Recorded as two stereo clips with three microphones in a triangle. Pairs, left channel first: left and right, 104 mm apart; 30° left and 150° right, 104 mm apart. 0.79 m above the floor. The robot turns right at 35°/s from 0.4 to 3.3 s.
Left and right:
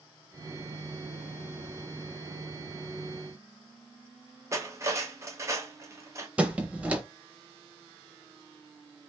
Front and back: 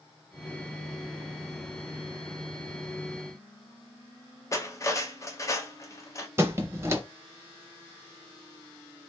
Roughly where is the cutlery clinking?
Ahead right.